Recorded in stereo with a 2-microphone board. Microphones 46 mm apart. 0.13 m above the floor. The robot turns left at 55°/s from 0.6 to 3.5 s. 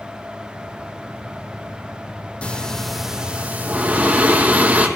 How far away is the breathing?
About 1.6 m.